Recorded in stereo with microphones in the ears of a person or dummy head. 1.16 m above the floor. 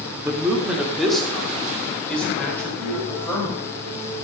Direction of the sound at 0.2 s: 20° right (ahead or behind).